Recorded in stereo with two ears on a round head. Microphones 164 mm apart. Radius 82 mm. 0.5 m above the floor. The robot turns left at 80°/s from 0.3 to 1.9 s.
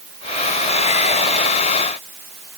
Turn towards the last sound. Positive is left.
No sound to turn to.